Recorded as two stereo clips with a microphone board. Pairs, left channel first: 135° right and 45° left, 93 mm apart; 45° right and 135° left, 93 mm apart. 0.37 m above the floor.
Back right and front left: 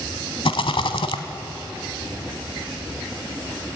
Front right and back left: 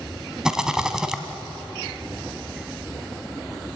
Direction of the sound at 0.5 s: 140° right.